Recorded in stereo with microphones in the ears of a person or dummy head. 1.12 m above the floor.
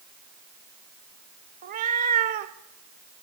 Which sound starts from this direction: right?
A cat meowing, at 1.6 s.